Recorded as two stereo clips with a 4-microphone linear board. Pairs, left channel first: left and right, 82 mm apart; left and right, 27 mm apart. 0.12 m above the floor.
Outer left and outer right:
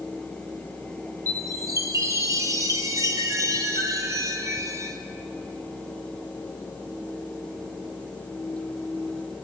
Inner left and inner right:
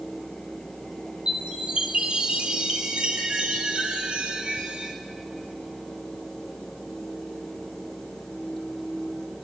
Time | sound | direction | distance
1.3 | a chime | 40° right (ahead or behind) | 1.0 m